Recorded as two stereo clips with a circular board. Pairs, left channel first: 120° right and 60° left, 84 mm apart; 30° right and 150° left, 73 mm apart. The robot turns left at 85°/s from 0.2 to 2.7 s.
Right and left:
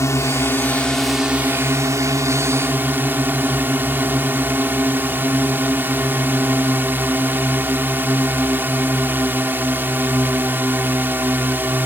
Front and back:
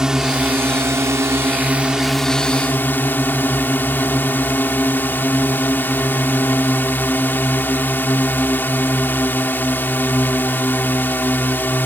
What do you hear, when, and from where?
0.0 s a drone: 135° right; by 11.9 s 10° left